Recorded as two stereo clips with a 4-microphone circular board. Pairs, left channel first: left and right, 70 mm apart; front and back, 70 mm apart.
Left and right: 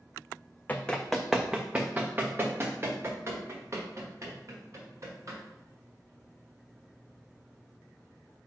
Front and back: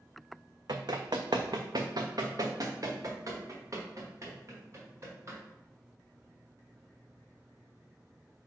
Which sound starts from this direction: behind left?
Running footsteps, at 0.7 s.